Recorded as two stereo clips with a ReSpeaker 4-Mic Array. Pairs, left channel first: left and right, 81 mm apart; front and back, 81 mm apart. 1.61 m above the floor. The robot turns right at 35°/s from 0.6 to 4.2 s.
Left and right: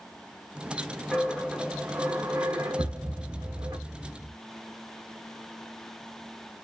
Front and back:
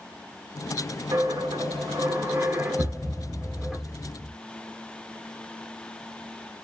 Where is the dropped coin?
Straight behind, 1.1 m; by 3.8 s 85° right, 1.1 m.